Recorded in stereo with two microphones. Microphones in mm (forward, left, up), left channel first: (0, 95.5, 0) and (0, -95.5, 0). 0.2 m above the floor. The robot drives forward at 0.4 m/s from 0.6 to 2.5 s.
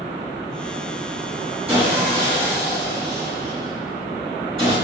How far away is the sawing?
About 1.6 m.